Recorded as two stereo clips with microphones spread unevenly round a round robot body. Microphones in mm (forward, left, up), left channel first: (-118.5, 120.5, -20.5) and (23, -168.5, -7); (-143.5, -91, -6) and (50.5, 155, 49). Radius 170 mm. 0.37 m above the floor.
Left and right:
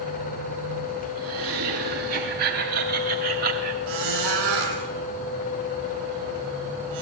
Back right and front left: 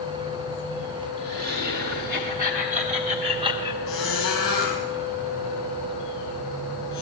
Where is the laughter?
10° right, 3.5 m; by 3.8 s 35° right, 1.7 m.